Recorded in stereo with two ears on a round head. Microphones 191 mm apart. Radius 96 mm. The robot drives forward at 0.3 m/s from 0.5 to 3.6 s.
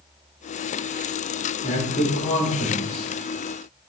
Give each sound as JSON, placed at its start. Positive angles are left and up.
{"t": 1.6, "sound": "a man speaking", "side_deg": 35, "distance_m": 1.2}